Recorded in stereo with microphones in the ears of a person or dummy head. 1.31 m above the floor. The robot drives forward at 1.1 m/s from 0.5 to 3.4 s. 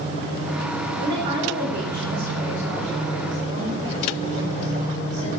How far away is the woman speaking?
About 4 m.